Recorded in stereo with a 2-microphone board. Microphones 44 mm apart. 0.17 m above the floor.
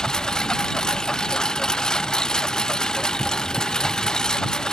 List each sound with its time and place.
0.0 s a lawn mower: 15° left (ahead or behind)